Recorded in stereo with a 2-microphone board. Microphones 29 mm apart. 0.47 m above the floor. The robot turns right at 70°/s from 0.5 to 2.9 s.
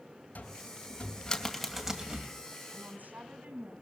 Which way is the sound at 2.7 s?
70° right (ahead or behind).